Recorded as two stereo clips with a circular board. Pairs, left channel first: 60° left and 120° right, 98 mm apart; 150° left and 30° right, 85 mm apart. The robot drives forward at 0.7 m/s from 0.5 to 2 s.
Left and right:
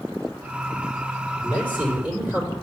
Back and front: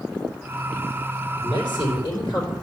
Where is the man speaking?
170° left, 4 m.